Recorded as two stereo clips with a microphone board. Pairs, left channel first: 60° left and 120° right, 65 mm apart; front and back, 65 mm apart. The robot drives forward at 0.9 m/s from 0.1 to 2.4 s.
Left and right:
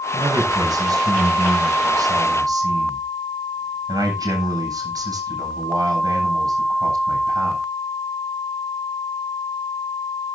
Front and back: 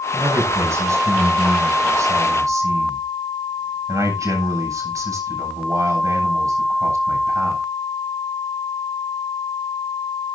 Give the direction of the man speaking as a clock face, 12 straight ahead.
4 o'clock.